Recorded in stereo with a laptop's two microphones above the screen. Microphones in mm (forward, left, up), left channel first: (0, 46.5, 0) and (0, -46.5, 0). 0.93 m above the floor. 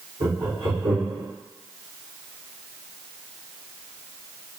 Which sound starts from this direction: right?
Laughter, at 0.2 s.